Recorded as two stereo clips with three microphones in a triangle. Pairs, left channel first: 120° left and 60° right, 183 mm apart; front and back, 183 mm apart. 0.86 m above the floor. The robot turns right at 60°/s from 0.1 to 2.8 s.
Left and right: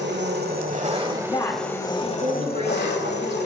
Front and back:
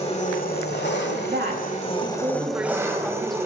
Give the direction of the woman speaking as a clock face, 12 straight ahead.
6 o'clock.